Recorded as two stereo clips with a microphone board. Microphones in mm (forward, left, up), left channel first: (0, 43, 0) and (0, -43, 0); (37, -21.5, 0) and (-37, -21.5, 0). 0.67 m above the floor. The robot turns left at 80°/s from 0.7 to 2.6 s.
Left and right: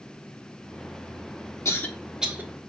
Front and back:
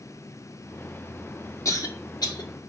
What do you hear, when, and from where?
1.6 s a cough: 35° left, 1.1 m; by 2.5 s 30° right, 1.1 m